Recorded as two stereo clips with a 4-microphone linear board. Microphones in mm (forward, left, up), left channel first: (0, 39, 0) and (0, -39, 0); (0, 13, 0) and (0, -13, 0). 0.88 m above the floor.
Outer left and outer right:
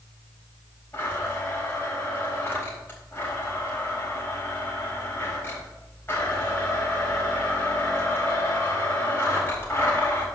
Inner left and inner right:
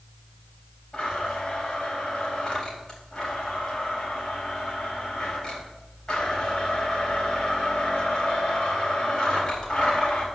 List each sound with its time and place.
0.9 s a blender: 25° left (ahead or behind), 4 m